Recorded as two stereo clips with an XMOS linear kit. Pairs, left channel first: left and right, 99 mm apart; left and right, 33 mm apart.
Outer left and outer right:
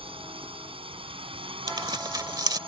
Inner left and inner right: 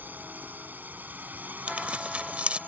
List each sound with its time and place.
0.0 s a drone: 65° right (ahead or behind)
1.7 s tearing paper: 40° right (ahead or behind)